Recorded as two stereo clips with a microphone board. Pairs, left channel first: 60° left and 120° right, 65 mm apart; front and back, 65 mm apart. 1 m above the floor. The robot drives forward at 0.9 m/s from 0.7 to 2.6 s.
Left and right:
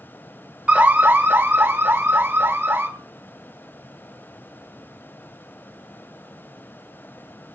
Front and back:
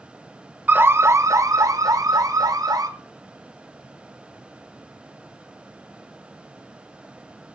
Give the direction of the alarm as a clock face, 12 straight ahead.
5 o'clock.